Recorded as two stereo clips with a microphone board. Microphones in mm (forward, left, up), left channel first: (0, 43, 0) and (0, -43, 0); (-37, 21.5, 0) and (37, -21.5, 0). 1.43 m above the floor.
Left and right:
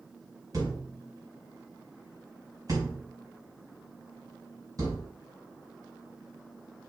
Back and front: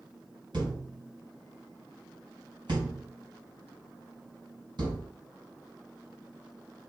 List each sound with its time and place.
0.5 s a thud: 50° right, 4 m